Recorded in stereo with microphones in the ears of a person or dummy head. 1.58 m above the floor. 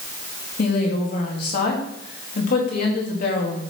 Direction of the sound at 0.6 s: 55° left (ahead or behind).